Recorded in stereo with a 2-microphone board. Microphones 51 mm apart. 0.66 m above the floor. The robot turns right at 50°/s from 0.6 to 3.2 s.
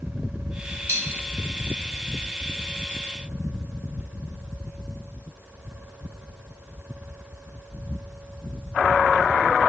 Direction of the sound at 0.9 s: 75° right (ahead or behind).